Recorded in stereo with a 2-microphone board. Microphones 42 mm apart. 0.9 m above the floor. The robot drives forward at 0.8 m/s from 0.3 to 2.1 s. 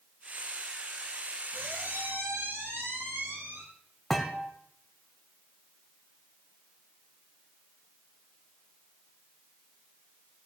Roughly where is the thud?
Centre.